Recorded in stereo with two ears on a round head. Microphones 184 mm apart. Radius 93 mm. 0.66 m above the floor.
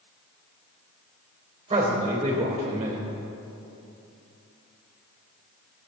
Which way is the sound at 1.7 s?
25° right (ahead or behind).